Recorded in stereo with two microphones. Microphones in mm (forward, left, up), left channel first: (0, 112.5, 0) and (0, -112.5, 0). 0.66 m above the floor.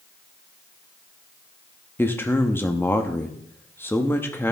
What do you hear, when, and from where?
2.0 s a man speaking: 10° left (ahead or behind), 0.9 m